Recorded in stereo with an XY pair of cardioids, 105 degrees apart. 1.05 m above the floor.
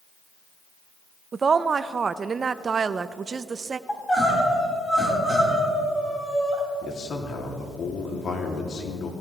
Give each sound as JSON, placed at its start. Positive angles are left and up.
{"t": 1.3, "sound": "a woman speaking", "azimuth_deg": -40, "distance_m": 0.6}
{"t": 3.9, "sound": "crying", "azimuth_deg": 15, "distance_m": 4.0}
{"t": 6.8, "sound": "a man speaking", "azimuth_deg": 50, "distance_m": 2.5}